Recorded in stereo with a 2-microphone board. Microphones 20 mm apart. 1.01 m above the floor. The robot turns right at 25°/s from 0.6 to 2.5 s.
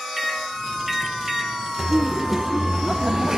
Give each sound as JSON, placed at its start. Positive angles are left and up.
{"t": 0.2, "sound": "a microwave", "side_deg": -5, "distance_m": 1.9}
{"t": 1.8, "sound": "laughter", "side_deg": -15, "distance_m": 0.6}